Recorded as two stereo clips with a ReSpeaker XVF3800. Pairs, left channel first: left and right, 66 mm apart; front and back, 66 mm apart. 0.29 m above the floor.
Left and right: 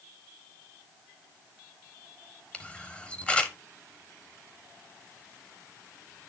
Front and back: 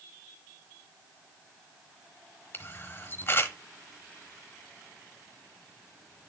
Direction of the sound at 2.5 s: 25° left.